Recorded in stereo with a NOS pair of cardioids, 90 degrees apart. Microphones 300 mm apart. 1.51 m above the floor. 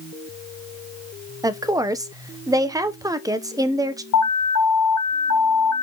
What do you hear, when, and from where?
1.4 s a woman speaking: 10° right, 1.1 m
4.1 s an alarm: 70° left, 0.6 m